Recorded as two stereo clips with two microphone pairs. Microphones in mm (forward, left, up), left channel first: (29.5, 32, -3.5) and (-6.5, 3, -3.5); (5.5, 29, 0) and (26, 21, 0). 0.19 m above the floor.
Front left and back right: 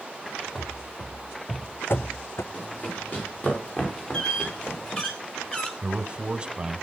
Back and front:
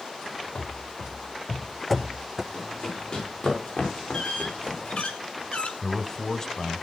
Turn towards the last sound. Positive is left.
turn(degrees=-175)